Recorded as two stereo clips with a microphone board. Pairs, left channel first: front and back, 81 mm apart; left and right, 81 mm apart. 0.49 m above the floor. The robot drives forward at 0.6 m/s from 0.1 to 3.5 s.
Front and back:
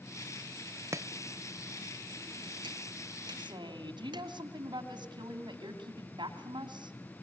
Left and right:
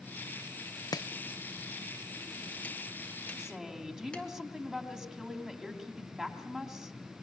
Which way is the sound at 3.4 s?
175° right.